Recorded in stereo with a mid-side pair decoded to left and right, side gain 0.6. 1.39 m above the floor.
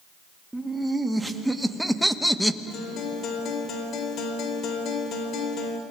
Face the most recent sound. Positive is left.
turn(degrees=55)